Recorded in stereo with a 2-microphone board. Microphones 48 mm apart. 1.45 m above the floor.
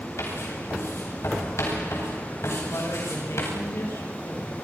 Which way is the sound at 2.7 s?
75° left (ahead or behind).